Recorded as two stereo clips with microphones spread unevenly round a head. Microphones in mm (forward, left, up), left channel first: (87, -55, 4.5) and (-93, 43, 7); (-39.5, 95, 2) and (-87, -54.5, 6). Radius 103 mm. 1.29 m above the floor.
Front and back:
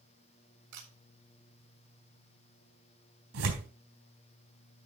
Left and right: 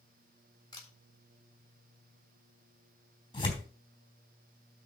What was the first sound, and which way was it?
A camera shutter, 140° left.